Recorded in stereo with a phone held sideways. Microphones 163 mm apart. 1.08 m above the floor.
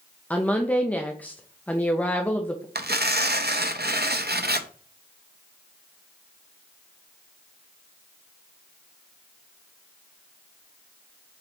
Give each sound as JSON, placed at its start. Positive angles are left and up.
{"t": 0.3, "sound": "a woman speaking", "side_deg": 10, "distance_m": 0.8}
{"t": 2.8, "sound": "tearing paper", "side_deg": -80, "distance_m": 0.7}